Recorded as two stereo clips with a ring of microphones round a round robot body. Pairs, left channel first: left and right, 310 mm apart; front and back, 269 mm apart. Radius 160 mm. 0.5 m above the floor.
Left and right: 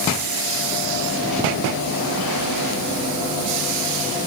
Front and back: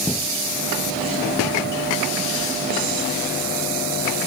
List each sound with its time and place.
Only background noise.